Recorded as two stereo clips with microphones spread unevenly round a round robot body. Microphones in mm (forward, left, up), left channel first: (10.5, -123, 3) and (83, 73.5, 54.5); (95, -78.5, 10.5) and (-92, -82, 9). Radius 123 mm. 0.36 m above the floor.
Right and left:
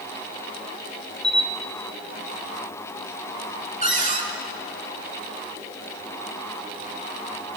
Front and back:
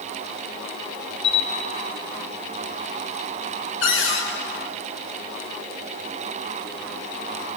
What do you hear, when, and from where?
1.2 s a camera shutter: 20° right, 4.5 m
3.8 s a cupboard door: 10° left, 4.5 m